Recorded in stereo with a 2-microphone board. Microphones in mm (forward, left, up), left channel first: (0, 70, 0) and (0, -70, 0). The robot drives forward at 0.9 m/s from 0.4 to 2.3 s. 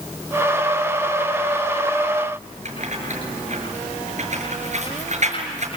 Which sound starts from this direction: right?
Keys jangling, at 2.6 s.